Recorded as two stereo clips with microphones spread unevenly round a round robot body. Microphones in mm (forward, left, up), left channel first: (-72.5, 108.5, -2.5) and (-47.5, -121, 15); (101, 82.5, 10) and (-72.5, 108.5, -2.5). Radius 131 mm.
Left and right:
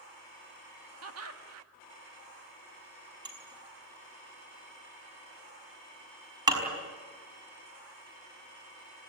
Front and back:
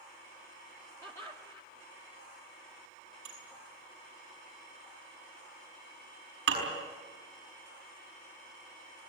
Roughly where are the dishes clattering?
Behind right.